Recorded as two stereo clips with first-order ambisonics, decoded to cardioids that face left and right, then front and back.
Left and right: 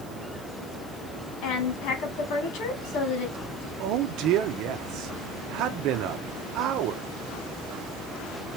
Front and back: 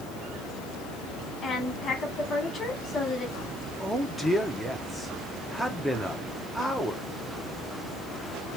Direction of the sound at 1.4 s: 65° left.